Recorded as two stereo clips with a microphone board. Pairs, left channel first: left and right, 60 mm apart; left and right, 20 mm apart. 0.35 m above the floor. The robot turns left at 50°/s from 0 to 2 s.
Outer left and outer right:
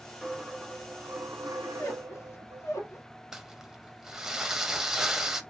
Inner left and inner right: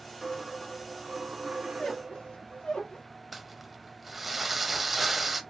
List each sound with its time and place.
0.2 s a dropped coin: straight ahead, 0.6 m; by 2.6 s 90° right, 0.6 m
1.6 s a squeak: 45° left (ahead or behind), 1.2 m; by 3.0 s 60° left (ahead or behind), 1.2 m
3.3 s crumpling: 5° right (ahead or behind), 0.5 m